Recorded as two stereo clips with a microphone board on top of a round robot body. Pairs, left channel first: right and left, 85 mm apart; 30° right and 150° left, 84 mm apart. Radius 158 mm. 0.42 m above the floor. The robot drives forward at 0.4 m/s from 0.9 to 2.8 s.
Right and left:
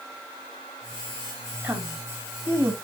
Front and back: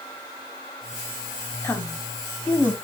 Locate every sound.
1.6 s a woman speaking: 30° left, 1.8 m; by 2.8 s 40° left, 1.5 m